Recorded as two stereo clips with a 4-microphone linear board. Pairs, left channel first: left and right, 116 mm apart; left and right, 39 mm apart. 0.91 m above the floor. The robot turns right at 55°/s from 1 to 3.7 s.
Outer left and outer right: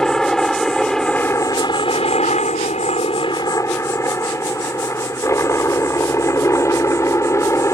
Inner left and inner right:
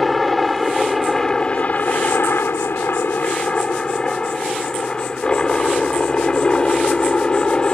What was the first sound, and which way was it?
A helicopter, 5° left.